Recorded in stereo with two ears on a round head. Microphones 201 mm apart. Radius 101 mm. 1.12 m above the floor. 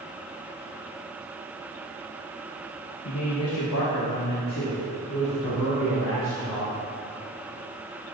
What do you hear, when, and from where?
3.0 s a man speaking: 85° left, 1.5 m; by 6.8 s 65° left (ahead or behind), 5.5 m